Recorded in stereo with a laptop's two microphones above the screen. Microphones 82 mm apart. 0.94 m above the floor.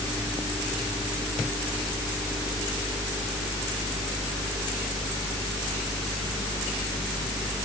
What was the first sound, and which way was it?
Only background noise.